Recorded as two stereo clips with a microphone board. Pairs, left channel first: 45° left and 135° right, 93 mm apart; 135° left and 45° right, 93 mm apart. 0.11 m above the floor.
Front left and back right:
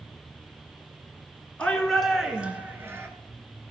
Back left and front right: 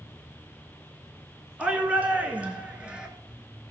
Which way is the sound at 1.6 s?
5° right.